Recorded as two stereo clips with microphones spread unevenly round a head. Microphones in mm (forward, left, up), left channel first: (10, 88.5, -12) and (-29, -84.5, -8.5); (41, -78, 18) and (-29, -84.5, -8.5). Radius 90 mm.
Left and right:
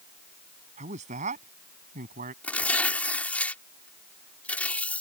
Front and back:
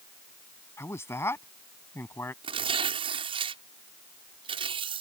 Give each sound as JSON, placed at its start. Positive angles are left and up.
{"t": 0.8, "sound": "a man speaking", "azimuth_deg": -45}
{"t": 2.4, "sound": "tearing paper", "azimuth_deg": 160}